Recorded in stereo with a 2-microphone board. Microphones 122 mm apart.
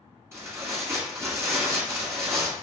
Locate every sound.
0.3 s tearing paper: 20° right (ahead or behind), 1.5 m